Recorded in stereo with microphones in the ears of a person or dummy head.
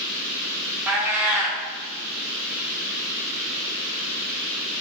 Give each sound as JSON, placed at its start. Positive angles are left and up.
{"t": 0.9, "sound": "a cat meowing", "side_deg": -10, "distance_m": 0.5}